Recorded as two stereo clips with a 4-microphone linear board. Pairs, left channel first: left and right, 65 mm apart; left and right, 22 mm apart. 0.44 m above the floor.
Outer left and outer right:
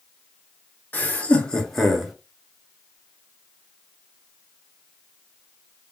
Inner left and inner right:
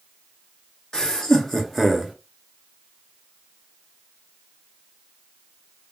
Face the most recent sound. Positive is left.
turn(degrees=-5)  # may be behind; listen again after turning